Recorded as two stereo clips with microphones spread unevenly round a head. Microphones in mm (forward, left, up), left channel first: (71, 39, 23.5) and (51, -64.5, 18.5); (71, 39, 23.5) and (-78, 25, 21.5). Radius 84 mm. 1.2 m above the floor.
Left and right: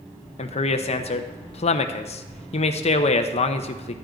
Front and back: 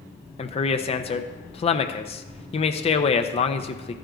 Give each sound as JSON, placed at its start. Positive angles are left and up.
{"t": 0.4, "sound": "a man speaking", "azimuth_deg": 55, "distance_m": 0.7}